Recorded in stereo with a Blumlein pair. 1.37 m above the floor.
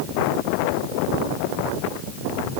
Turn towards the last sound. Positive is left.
No sound to turn to.